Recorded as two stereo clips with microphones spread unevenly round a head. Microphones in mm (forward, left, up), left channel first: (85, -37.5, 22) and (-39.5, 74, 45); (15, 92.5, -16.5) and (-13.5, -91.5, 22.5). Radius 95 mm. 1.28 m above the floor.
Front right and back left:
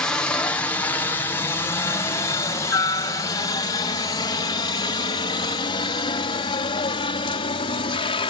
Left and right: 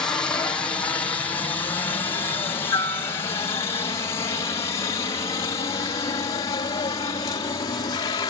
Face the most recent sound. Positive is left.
turn(degrees=15)